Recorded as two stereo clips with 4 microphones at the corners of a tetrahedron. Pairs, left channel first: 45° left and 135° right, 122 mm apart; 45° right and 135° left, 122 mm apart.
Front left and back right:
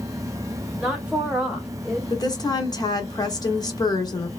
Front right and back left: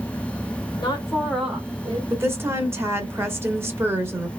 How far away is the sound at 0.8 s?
About 1.3 m.